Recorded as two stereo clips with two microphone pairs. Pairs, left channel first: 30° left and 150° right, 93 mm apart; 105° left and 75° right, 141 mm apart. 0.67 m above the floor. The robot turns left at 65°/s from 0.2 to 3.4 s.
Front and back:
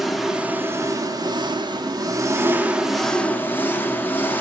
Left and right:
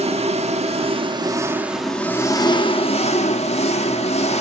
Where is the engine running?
60° right, 1.0 m; by 4.4 s 95° left, 1.0 m.